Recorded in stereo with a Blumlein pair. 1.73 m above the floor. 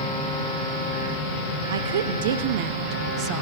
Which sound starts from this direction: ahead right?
A woman speaking, at 1.7 s.